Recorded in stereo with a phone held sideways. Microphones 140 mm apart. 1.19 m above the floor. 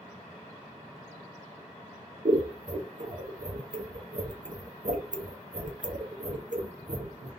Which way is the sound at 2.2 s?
65° right (ahead or behind).